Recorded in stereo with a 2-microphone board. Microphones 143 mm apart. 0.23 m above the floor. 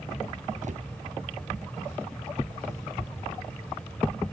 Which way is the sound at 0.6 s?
60° right (ahead or behind).